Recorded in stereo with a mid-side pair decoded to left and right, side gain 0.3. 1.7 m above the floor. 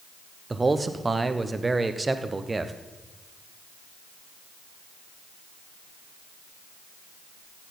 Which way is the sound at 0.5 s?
30° right.